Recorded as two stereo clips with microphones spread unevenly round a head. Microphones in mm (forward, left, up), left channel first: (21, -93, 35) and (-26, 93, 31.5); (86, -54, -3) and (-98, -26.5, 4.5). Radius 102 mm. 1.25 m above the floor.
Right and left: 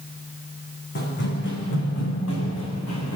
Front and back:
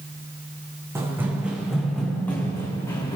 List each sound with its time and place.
0.9 s running footsteps: 115° right, 4 m; by 3.2 s 80° right, 5 m